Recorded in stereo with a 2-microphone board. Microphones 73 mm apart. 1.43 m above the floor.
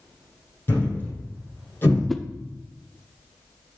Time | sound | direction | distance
0.7 | a thud | 30° left (ahead or behind) | 4.5 m
2.1 | a whoosh | centre (ahead or behind) | 0.5 m